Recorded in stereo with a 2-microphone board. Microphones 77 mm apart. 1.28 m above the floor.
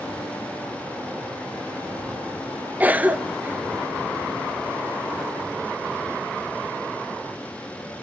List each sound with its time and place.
2.8 s a cough: 20° right (ahead or behind), 0.5 m